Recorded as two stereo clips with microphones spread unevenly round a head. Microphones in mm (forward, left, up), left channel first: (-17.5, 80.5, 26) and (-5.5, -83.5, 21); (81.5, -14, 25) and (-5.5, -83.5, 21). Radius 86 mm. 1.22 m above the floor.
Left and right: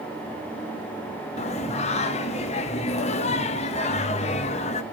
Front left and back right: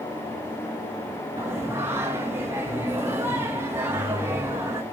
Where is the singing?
140° left, 0.7 m.